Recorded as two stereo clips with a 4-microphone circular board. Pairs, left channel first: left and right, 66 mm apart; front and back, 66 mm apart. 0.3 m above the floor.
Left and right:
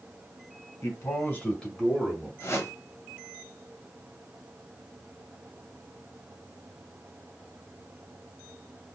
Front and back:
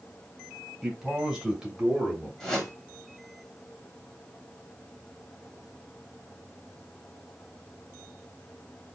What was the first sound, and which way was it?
A man speaking, 95° left.